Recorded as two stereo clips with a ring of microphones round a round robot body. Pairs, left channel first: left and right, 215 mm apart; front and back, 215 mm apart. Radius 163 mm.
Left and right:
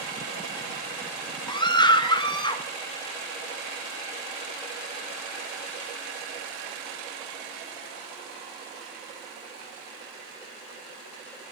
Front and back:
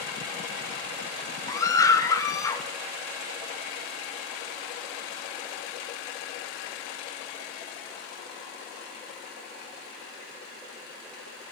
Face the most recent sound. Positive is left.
turn(degrees=55)